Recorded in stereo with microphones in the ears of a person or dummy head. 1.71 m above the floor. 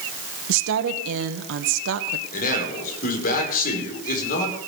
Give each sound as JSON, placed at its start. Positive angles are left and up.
{"t": 0.5, "sound": "a woman speaking", "side_deg": -75, "distance_m": 1.7}
{"t": 2.3, "sound": "a man speaking", "side_deg": 50, "distance_m": 5.5}